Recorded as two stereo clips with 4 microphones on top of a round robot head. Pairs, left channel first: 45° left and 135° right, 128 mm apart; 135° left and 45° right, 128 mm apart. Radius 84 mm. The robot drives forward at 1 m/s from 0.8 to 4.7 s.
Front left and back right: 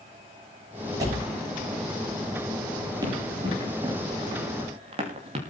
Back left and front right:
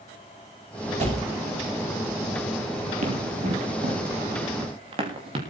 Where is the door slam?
75° right, 7 m.